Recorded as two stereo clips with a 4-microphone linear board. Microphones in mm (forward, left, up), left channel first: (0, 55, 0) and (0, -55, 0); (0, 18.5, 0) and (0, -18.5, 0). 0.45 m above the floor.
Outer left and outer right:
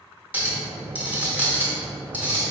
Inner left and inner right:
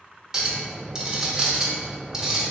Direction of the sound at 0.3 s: 15° right (ahead or behind).